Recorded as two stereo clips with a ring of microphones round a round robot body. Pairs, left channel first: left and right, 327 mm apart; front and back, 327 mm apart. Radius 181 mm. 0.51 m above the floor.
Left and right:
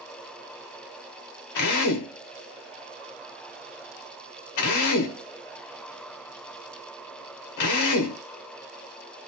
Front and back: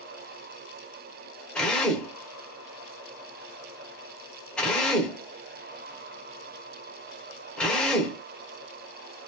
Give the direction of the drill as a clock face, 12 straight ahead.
9 o'clock.